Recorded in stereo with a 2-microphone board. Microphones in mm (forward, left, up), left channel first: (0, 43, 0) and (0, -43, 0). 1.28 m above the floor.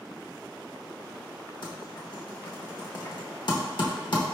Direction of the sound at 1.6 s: 60° left (ahead or behind).